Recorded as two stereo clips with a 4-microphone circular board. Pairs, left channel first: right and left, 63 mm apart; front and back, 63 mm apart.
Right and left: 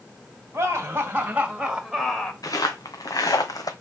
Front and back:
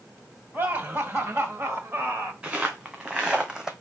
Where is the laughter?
130° left, 2.5 m; by 2.3 s 155° right, 1.6 m.